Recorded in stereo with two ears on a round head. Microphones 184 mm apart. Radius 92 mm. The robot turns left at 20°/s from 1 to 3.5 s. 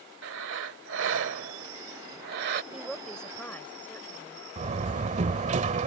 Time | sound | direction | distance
0.2 | breathing | 90° right | ?
2.7 | a woman speaking | 5° right (ahead or behind) | ?
4.6 | a door slam | 35° right (ahead or behind) | ?